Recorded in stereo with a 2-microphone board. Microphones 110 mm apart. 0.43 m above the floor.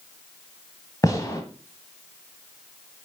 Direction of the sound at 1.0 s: 30° left (ahead or behind).